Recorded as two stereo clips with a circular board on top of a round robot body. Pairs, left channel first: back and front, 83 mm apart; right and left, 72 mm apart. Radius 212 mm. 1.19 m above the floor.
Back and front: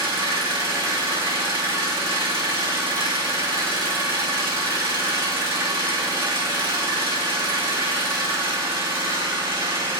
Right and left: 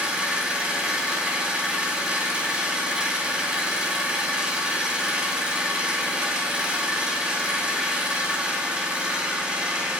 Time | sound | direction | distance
0.0 | an engine running | 15° left | 2 m